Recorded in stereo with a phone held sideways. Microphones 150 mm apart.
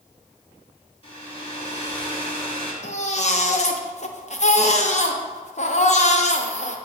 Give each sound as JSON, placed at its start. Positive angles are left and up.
{"t": 1.0, "sound": "a hair dryer", "side_deg": 35, "distance_m": 2.5}
{"t": 2.8, "sound": "a baby crying", "side_deg": 50, "distance_m": 0.7}